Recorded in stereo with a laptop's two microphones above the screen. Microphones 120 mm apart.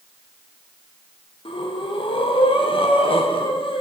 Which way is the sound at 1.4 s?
50° left (ahead or behind).